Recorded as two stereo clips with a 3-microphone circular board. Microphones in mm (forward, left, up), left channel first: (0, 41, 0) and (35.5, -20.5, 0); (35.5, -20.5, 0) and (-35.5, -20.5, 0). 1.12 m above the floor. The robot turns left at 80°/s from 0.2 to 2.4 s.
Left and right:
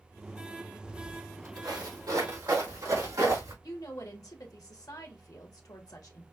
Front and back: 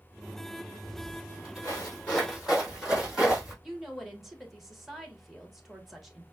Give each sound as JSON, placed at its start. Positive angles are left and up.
{"t": 0.8, "sound": "footsteps", "azimuth_deg": 35, "distance_m": 2.0}
{"t": 3.6, "sound": "a woman speaking", "azimuth_deg": 95, "distance_m": 1.3}